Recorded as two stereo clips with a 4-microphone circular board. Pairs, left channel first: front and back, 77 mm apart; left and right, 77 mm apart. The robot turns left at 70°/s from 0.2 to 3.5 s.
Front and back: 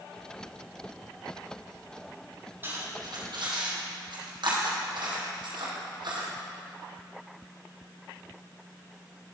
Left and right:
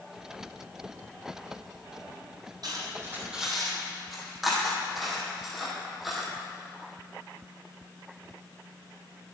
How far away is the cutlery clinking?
About 3 m.